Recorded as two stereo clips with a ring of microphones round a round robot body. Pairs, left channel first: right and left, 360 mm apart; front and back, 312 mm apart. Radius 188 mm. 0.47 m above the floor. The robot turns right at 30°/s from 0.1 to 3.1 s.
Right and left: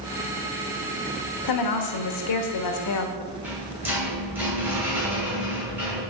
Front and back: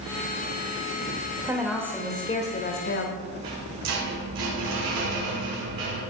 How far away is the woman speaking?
About 1.6 m.